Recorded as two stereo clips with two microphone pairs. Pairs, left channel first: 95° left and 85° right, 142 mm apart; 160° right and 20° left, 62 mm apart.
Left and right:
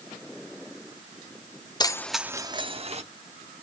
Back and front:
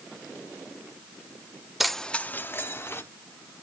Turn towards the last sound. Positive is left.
turn(degrees=-120)